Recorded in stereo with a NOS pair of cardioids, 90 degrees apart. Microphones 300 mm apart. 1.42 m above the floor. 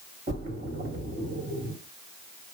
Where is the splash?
30° right, 2 m.